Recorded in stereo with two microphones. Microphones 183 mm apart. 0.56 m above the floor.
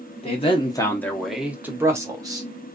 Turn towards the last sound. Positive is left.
turn(degrees=-20)  # may be behind; listen again after turning